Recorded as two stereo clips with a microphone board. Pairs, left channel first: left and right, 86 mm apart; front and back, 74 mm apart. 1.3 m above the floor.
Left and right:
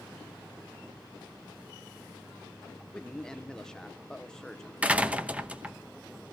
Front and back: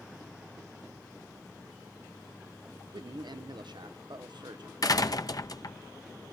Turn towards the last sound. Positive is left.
turn(degrees=-20)